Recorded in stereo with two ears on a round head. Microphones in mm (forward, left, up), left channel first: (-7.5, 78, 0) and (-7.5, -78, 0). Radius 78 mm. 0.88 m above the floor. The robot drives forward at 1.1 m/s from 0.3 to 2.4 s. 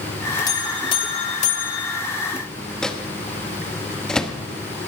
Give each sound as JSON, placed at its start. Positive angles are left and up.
{"t": 0.5, "sound": "a buzzer", "side_deg": 25, "distance_m": 1.9}
{"t": 2.8, "sound": "a microwave", "side_deg": 5, "distance_m": 1.0}